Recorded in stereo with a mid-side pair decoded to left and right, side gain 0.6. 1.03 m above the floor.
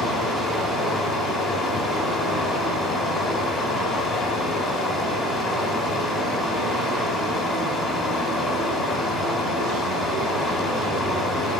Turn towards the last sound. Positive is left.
turn(degrees=45)